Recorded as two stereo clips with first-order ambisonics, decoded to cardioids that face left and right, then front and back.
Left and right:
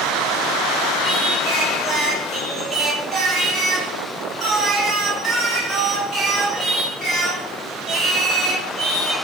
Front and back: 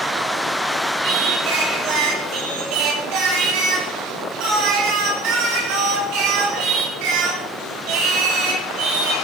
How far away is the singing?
About 5.5 m.